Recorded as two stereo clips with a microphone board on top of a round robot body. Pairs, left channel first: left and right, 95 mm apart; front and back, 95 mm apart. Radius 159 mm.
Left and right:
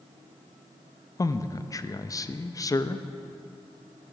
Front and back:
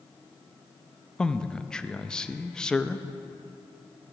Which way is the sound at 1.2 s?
80° left.